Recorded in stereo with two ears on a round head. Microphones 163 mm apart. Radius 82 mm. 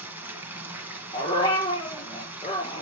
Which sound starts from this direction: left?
A dog barking, at 1.1 s.